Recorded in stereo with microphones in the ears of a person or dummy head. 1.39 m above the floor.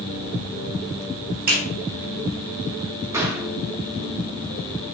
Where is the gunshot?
10° right (ahead or behind), 0.9 m.